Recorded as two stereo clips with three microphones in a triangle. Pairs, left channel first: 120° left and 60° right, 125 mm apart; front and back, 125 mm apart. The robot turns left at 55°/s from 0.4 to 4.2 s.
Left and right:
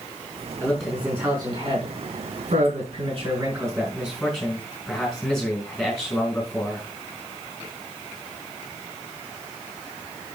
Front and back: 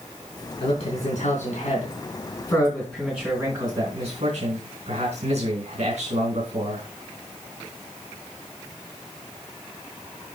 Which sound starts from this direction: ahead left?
A man speaking, at 0.6 s.